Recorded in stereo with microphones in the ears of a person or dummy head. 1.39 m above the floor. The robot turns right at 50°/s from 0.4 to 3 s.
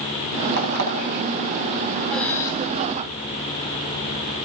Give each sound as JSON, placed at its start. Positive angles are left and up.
{"t": 0.6, "sound": "an alarm clock", "side_deg": -55, "distance_m": 5.5}
{"t": 2.1, "sound": "breathing", "side_deg": 0, "distance_m": 2.5}